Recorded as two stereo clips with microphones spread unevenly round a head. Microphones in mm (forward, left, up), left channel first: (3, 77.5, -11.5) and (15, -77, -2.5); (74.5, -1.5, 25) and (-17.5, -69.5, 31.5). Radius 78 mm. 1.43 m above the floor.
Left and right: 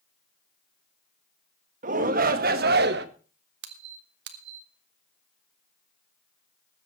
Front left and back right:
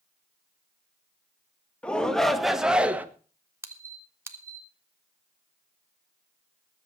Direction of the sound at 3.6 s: 80° right.